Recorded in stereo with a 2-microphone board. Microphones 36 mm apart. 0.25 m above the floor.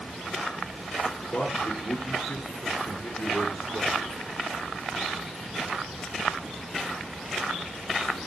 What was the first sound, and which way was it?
A man speaking, 55° left (ahead or behind).